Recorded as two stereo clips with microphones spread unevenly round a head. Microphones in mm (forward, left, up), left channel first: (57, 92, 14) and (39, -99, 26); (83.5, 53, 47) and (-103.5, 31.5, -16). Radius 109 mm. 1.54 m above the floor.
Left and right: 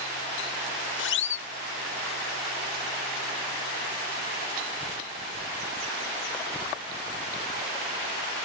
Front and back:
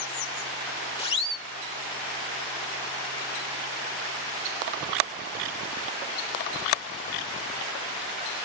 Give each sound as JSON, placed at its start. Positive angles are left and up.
{"t": 1.0, "sound": "a siren", "azimuth_deg": 65}